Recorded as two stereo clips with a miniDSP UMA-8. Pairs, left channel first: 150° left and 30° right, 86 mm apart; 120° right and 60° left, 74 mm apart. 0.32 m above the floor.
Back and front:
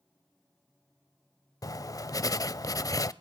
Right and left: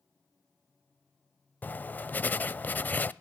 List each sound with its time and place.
1.6 s writing: straight behind, 0.6 m